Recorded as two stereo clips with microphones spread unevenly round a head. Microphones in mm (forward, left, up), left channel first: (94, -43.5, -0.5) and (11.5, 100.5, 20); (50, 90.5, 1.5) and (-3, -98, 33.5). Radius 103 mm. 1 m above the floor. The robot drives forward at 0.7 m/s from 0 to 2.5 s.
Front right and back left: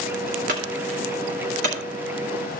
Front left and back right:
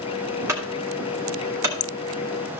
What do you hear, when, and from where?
0.5 s a clunk: 175° left, 2 m